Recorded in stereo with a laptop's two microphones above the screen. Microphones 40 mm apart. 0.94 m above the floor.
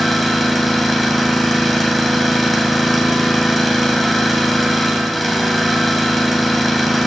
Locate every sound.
0.0 s an engine running: centre (ahead or behind), 2.5 m